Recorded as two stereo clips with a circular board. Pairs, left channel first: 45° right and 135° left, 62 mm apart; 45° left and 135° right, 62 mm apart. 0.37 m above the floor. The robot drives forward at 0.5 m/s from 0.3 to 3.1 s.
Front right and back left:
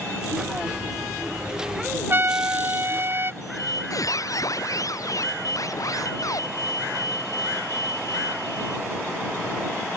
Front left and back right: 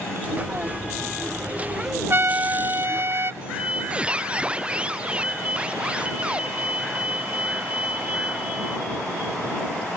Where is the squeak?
65° right.